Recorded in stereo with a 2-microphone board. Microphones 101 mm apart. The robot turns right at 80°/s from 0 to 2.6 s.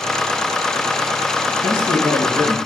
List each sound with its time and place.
1.6 s a man speaking: 135° left, 2.0 m; by 2.6 s 150° right, 2.0 m